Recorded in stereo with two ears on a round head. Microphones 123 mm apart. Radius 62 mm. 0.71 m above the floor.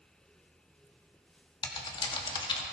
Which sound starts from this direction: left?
Typing on a keyboard, at 1.6 s.